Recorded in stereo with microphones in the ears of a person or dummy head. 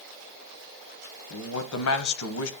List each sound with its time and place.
1.3 s a man speaking: 85° left, 1.1 m